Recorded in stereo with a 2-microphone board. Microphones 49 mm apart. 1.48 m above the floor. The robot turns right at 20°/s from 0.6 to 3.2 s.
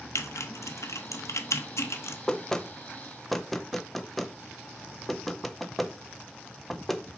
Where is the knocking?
15° left (ahead or behind), 0.5 m; by 7.0 s 5° left (ahead or behind), 0.5 m.